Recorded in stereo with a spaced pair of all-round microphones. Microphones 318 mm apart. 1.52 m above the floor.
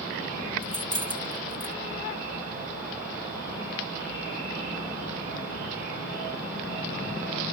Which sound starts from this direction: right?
Keys jangling, at 0.6 s.